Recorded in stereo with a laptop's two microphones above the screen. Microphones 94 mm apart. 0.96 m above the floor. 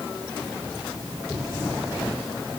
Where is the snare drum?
No snare drum in this recording.